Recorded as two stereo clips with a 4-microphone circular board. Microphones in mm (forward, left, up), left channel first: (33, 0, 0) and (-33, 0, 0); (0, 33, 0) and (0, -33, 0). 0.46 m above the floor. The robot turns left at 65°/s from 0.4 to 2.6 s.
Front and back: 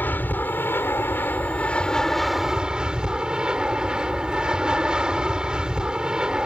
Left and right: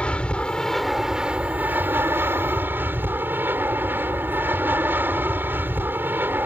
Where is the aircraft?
30° left; by 6.5 s 110° right.